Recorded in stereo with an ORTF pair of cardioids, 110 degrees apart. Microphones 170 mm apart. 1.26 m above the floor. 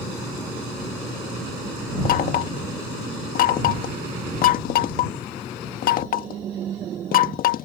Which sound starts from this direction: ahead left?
Knocking, at 2.0 s.